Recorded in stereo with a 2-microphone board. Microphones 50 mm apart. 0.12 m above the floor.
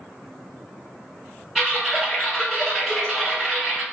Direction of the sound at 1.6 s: 5° right (ahead or behind).